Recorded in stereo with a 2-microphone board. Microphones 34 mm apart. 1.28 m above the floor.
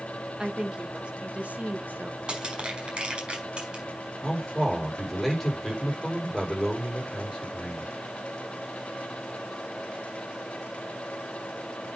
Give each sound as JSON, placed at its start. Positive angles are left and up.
{"t": 0.4, "sound": "a woman speaking", "side_deg": -20, "distance_m": 2.0}
{"t": 2.3, "sound": "crushing", "side_deg": -25, "distance_m": 4.5}
{"t": 4.2, "sound": "a man speaking", "side_deg": 10, "distance_m": 5.0}